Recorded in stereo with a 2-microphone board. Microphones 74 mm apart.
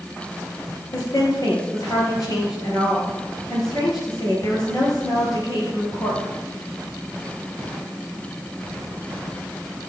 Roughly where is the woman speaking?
Left.